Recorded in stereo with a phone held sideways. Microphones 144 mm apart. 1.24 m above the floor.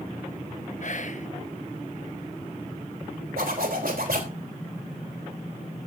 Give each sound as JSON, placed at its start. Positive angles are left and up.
{"t": 0.8, "sound": "whispering", "side_deg": 60, "distance_m": 1.2}
{"t": 3.4, "sound": "a zipper", "side_deg": -85, "distance_m": 3.5}